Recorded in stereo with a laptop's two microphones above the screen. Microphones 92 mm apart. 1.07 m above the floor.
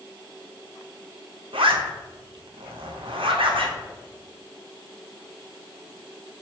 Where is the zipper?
75° right (ahead or behind), 0.7 m.